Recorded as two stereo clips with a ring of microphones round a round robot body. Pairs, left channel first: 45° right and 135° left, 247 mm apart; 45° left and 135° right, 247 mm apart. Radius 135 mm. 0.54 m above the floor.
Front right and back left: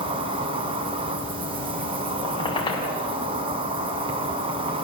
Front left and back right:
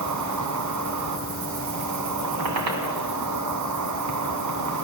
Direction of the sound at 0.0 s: 155° right.